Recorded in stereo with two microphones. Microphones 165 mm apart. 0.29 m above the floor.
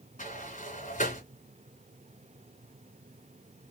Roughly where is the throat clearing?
I don't hear throat clearing.